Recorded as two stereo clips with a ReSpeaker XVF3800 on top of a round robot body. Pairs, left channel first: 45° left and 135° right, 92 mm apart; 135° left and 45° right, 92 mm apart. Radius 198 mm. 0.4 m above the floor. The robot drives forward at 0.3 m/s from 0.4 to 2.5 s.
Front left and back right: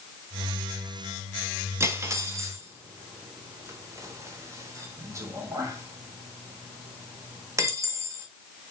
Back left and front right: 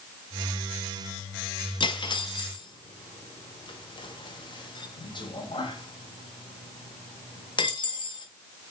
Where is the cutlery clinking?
165° left, 0.8 m; by 8.3 s 170° left, 1.0 m.